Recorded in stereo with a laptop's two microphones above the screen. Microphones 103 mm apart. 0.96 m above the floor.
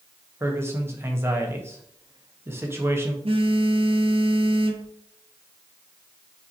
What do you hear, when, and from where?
0.4 s a man speaking: 25° right (ahead or behind), 0.7 m
3.2 s a phone buzzing: 60° right (ahead or behind), 0.6 m